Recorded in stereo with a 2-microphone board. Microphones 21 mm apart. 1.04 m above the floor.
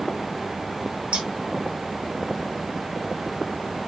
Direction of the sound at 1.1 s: 60° right (ahead or behind).